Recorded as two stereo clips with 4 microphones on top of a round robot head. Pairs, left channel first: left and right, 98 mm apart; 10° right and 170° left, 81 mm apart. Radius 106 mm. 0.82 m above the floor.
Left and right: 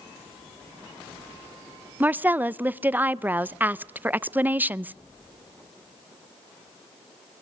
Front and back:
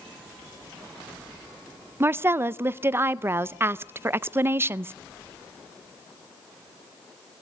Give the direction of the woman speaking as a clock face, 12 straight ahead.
5 o'clock.